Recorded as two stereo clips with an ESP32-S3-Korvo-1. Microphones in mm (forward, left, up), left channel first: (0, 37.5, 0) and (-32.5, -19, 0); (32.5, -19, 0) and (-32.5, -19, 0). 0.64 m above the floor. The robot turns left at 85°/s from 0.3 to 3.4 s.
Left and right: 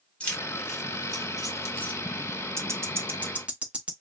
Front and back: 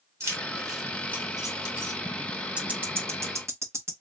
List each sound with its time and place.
0.2 s keys jangling: 130° left, 1.2 m; by 2.0 s 15° right, 1.2 m
2.6 s ticking: 115° right, 0.7 m; by 3.9 s 175° left, 0.7 m